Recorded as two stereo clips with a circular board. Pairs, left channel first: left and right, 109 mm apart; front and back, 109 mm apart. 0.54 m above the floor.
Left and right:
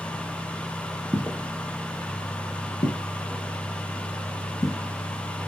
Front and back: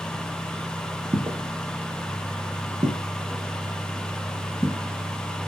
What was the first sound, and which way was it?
Footsteps, 160° right.